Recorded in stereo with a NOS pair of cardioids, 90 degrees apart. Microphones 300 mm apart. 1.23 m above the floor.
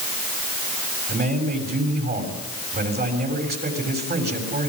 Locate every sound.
1.1 s a man speaking: 35° right, 6.5 m